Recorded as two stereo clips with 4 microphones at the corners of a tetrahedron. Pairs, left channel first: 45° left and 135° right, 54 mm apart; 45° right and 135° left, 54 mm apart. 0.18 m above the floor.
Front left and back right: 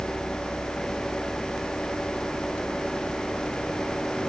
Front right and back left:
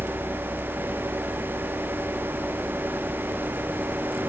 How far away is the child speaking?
I don't hear a child speaking.